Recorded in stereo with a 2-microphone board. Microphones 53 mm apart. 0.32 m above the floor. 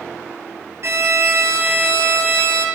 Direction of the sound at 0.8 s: 60° right (ahead or behind).